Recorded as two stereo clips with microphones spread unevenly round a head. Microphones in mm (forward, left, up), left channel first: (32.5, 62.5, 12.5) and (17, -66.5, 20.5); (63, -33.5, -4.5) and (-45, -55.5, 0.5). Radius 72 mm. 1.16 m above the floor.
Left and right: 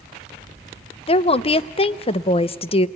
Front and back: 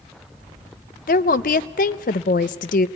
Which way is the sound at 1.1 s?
35° left.